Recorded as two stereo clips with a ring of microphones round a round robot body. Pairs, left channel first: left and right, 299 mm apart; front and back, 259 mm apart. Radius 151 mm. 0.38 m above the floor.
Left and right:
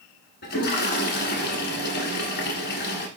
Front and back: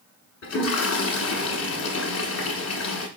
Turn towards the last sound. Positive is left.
turn(degrees=30)